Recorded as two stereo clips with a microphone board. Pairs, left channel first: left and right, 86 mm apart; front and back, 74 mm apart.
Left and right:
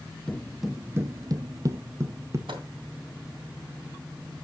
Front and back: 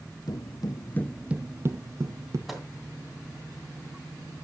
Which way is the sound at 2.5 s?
90° right.